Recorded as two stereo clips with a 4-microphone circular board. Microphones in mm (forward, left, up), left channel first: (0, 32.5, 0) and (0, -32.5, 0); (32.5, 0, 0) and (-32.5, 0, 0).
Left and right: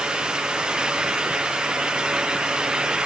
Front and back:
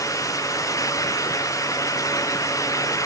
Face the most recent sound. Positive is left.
No sound to turn to.